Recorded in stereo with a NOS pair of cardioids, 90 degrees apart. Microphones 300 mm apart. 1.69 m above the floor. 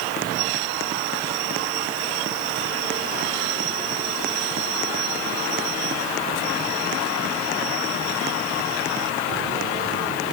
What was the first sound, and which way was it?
Only background noise.